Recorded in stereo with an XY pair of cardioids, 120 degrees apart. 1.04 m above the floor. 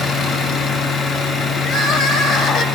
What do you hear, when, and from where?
0.0 s a machine running: 45° left, 6.5 m
1.6 s crying: 60° left, 2.5 m